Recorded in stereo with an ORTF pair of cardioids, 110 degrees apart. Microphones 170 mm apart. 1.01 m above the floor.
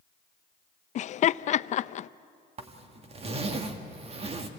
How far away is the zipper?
About 1.8 m.